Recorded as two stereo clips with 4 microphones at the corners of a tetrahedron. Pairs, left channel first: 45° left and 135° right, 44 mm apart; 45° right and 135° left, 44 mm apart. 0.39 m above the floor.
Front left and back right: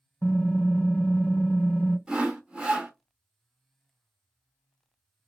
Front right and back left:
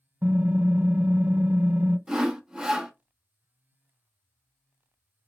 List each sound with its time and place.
0.2 s typing on a keyboard: 85° left, 0.8 m
2.1 s sawing: 165° right, 0.7 m